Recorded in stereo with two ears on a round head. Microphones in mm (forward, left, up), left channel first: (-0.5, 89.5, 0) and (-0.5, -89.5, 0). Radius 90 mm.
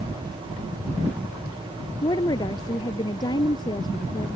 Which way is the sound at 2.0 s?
20° left (ahead or behind).